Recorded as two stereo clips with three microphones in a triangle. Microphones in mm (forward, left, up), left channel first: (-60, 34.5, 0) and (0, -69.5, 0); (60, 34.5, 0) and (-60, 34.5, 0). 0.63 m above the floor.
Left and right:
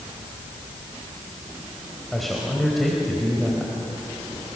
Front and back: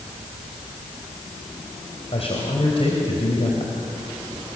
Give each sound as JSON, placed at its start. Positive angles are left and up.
{"t": 2.1, "sound": "a man speaking", "azimuth_deg": 30, "distance_m": 3.0}